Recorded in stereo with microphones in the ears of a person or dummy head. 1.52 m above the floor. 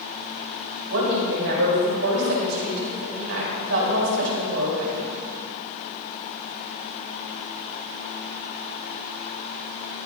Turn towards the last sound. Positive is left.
turn(degrees=-85)